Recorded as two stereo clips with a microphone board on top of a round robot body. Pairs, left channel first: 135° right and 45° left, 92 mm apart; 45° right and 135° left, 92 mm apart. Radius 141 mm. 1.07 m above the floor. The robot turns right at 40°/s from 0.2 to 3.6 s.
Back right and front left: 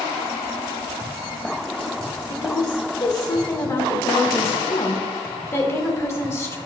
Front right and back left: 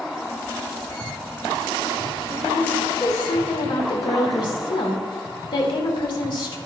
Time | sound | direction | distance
2.3 | a woman speaking | 130° right | 2.5 m